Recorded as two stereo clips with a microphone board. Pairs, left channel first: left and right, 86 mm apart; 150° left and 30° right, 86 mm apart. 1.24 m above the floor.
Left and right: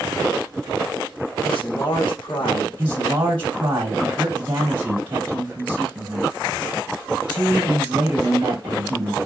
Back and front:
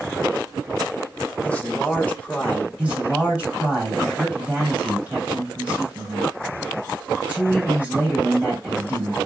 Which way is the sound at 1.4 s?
75° left.